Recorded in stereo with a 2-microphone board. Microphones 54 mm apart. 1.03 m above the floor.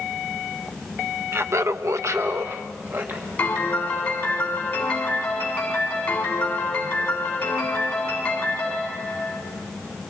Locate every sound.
1.3 s laughter: 50° right (ahead or behind), 0.8 m; by 3.3 s 35° right (ahead or behind), 1.7 m
3.4 s a piano: 30° left (ahead or behind), 5.5 m